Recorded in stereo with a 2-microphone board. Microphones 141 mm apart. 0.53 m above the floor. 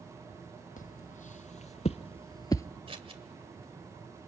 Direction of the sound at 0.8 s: 70° left (ahead or behind).